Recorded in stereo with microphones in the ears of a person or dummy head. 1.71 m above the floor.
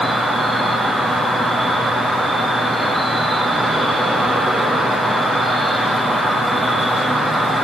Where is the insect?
Centre (ahead or behind), 1.5 m.